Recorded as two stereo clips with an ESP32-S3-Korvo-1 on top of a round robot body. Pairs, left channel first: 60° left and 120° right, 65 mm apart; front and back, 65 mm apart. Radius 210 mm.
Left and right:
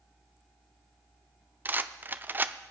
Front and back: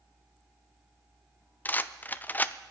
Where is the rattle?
65° right, 0.6 m.